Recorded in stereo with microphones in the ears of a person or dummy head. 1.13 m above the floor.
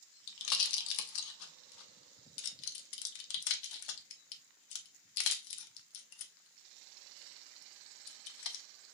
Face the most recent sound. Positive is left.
turn(degrees=65)  # may be behind; listen again after turning